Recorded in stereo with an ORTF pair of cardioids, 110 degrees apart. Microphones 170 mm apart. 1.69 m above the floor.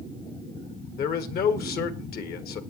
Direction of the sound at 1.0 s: 65° left.